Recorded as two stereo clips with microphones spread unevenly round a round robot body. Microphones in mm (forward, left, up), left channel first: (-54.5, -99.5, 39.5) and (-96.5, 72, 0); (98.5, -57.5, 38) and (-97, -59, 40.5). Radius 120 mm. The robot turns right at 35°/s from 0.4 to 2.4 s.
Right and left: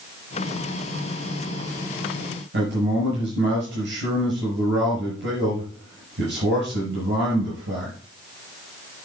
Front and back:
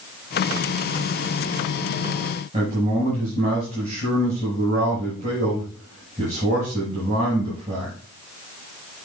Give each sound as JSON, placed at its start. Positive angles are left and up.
{"t": 2.5, "sound": "a man speaking", "azimuth_deg": 115, "distance_m": 6.0}